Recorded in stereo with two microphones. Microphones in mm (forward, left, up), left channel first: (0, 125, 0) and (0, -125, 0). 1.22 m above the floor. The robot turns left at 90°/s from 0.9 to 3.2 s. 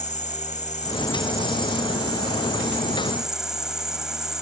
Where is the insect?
30° left; by 4.4 s straight behind.